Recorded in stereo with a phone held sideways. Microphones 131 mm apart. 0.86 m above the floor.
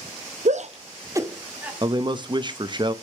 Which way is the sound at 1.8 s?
35° right (ahead or behind).